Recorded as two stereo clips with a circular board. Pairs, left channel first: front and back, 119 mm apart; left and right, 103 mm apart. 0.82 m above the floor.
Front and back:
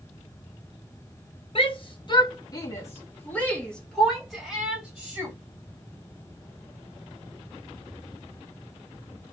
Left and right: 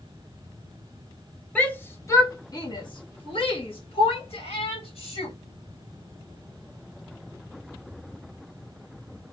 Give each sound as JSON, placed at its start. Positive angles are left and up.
{"t": 1.6, "sound": "a shout", "azimuth_deg": 15, "distance_m": 1.1}